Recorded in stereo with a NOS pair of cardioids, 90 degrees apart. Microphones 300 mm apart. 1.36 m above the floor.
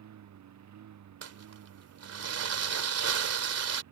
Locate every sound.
0.0 s a lawn mower: 65° right
1.2 s crumpling: 55° right